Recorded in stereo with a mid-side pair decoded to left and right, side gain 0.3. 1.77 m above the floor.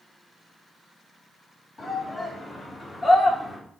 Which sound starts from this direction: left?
A shout, at 1.8 s.